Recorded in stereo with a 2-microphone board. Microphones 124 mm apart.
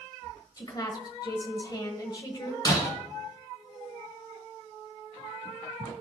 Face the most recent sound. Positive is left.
turn(degrees=30)  # may be behind; listen again after turning